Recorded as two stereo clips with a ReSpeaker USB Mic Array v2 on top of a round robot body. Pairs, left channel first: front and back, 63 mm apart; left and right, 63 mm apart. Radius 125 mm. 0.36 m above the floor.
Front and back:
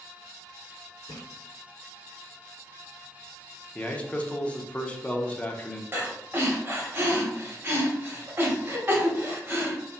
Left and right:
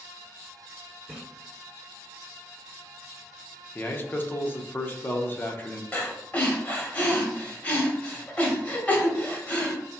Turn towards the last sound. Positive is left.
turn(degrees=140)